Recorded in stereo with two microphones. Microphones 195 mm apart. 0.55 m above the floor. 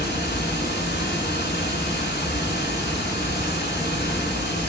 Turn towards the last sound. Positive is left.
turn(degrees=60)  # may be behind; listen again after turning